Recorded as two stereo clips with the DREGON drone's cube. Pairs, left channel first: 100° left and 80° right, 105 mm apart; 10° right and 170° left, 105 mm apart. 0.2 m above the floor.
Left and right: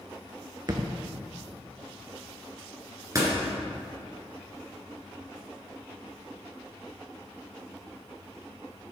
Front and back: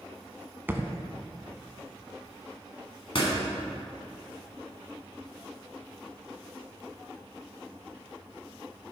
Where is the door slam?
25° right, 1.9 m.